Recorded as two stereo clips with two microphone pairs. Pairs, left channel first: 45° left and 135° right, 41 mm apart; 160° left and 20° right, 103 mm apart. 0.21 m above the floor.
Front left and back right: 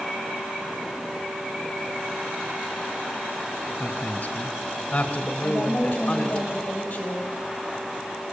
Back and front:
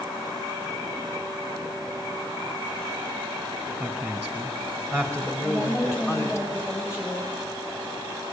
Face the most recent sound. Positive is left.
turn(degrees=100)